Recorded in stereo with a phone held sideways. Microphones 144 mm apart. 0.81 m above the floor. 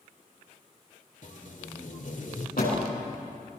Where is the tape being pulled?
65° left (ahead or behind), 2.5 m.